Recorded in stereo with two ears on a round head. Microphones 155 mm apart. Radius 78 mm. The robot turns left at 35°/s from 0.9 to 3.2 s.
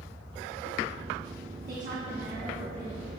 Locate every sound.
1.7 s a woman speaking: 110° right, 1.0 m; by 3.1 s 160° right, 1.0 m